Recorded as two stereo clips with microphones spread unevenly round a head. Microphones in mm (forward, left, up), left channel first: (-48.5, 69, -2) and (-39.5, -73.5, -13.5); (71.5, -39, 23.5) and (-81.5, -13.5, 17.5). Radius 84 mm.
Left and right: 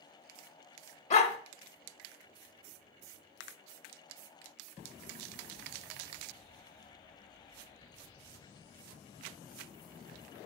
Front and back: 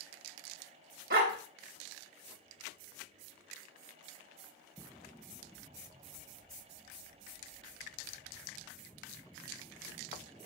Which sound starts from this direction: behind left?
A dog barking, at 1.1 s.